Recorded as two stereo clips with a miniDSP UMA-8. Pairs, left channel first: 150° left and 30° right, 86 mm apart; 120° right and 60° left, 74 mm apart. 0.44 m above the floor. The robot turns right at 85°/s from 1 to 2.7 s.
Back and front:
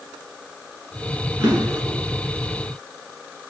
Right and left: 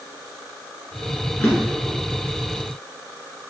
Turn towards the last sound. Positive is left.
turn(degrees=45)